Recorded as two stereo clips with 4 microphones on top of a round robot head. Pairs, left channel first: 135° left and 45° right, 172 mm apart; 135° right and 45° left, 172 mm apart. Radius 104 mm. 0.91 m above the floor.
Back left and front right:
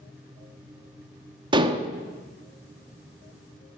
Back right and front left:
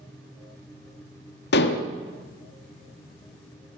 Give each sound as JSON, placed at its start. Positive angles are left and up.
{"t": 1.5, "sound": "dishes clattering", "azimuth_deg": -110, "distance_m": 1.2}